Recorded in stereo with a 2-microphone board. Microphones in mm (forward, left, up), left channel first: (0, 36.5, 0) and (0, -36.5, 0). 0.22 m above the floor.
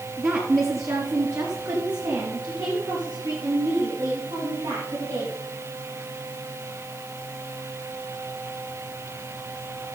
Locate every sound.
0.2 s a woman speaking: 35° right (ahead or behind), 2 m; by 5.3 s 70° right (ahead or behind), 5 m